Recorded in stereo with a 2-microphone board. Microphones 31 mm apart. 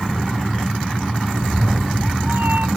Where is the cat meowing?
60° right (ahead or behind); by 2.7 s 75° right (ahead or behind).